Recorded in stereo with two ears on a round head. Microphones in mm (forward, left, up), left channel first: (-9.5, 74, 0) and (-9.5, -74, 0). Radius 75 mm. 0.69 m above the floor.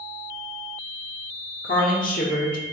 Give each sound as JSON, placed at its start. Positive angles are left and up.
{"t": 1.6, "sound": "a woman speaking", "side_deg": 50, "distance_m": 1.7}